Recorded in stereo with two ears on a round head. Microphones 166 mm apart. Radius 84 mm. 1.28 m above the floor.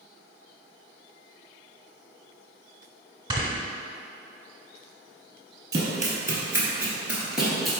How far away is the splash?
I don't hear a splash.